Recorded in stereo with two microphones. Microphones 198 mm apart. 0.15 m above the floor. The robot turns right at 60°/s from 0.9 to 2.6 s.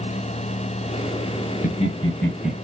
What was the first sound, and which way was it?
Laughter, 40° left (ahead or behind).